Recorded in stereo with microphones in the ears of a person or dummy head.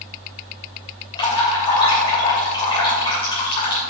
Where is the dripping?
30° left (ahead or behind), 3 m.